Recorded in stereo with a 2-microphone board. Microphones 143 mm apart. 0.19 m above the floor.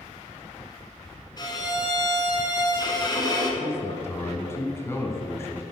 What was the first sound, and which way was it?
A violin, 30° left (ahead or behind).